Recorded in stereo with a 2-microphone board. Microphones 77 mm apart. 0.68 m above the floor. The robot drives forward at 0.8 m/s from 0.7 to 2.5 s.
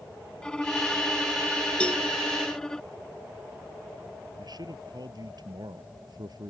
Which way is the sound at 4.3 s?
65° right (ahead or behind).